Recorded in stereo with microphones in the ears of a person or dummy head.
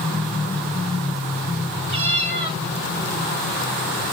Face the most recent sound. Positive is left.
turn(degrees=-30)  # may be behind; listen again after turning